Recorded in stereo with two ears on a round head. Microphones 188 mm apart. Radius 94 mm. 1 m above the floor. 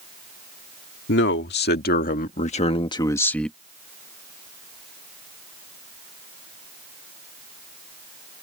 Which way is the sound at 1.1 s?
60° left (ahead or behind).